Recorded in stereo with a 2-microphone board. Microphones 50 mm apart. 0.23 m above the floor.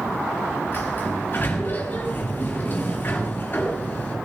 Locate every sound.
0.7 s a sliding door: 40° left (ahead or behind), 5 m